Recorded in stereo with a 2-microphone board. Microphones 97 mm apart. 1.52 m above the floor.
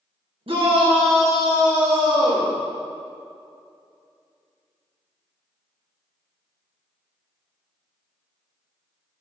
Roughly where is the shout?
Right.